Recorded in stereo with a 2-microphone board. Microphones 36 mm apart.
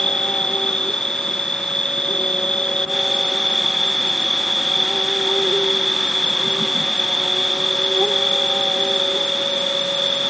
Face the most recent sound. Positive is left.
turn(degrees=20)  # may be behind; listen again after turning